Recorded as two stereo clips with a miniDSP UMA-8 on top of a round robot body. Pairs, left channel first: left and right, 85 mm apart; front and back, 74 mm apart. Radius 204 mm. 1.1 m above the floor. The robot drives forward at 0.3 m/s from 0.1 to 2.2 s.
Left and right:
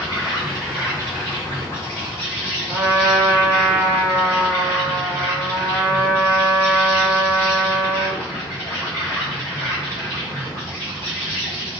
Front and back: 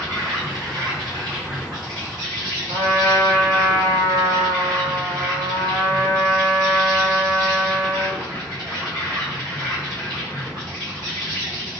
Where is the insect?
140° left, 2 m; by 11.8 s 150° left, 3 m.